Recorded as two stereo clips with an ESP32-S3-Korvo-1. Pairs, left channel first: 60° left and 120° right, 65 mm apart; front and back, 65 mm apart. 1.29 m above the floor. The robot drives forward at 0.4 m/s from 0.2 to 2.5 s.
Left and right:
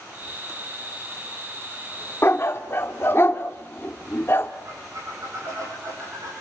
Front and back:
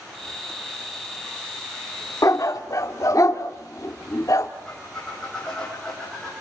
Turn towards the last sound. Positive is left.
turn(degrees=-80)